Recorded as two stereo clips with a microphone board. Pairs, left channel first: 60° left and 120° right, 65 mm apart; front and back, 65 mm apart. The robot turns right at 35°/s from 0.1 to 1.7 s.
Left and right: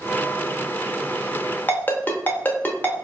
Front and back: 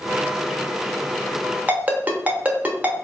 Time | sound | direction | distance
1.7 | a ringtone | 120° left | 0.8 m